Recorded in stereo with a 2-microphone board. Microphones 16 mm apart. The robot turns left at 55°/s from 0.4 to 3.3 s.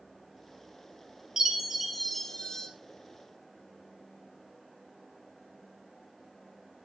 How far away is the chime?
About 2 m.